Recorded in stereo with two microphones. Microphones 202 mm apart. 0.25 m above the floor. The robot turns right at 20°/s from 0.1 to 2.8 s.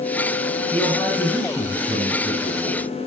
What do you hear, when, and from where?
0.7 s a man speaking: 175° left, 9.5 m; by 2.9 s 140° right, 9.5 m